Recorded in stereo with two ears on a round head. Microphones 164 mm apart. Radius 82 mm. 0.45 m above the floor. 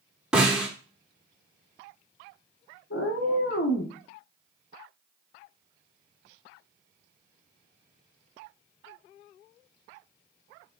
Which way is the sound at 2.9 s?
65° left (ahead or behind).